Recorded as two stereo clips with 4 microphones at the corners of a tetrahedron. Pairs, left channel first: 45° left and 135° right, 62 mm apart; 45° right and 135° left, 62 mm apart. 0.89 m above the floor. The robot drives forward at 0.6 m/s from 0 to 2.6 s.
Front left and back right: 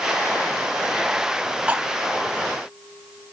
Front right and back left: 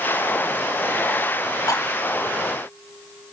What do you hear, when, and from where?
1.7 s cutlery clinking: 65° right, 0.9 m; by 1.8 s 70° right, 0.9 m